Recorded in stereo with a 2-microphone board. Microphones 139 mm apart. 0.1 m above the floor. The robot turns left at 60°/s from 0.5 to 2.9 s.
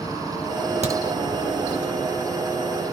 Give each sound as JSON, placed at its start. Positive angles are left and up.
{"t": 0.8, "sound": "a crack", "side_deg": -55, "distance_m": 1.2}